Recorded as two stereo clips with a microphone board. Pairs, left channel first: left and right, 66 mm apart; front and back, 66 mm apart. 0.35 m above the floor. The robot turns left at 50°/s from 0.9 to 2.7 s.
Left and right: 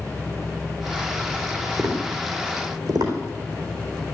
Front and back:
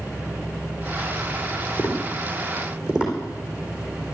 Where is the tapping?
55° right, 4 m; by 3.1 s 100° right, 4 m.